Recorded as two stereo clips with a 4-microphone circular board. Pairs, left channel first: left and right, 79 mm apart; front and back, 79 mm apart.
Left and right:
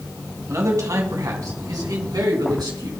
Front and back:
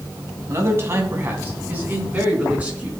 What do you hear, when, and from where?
0.5 s a man speaking: 130° right, 2.5 m; by 2.9 s 110° right, 4 m